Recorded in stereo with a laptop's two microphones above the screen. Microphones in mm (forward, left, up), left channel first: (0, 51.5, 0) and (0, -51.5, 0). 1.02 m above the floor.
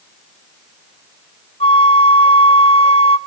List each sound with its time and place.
1.6 s a flute: 80° left, 1.2 m